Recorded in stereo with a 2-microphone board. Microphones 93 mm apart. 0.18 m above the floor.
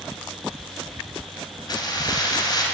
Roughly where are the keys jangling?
Left.